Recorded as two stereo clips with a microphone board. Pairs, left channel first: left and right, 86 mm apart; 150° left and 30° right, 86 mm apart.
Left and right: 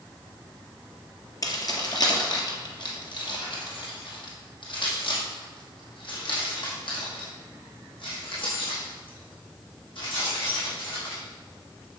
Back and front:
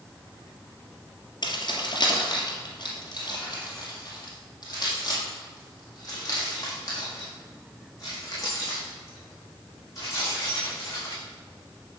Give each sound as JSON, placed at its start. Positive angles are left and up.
{"t": 1.4, "sound": "keys jangling", "azimuth_deg": 130, "distance_m": 2.0}